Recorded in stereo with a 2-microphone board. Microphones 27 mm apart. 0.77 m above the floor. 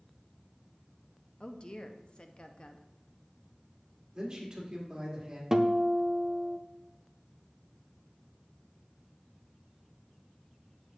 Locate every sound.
1.4 s a woman speaking: 35° left (ahead or behind), 0.6 m
4.1 s a man speaking: 30° right (ahead or behind), 1.9 m
5.5 s a guitar: 20° right (ahead or behind), 0.5 m